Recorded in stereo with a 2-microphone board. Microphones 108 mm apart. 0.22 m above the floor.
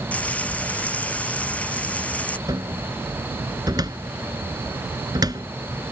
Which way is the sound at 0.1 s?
10° left (ahead or behind).